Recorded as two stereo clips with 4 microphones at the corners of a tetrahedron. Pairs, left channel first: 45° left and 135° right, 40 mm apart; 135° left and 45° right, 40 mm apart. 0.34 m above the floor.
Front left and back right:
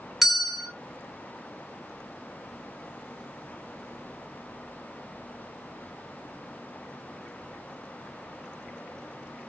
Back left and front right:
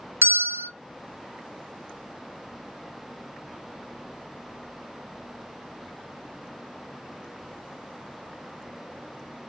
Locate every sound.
0.2 s a bell: 50° right, 0.5 m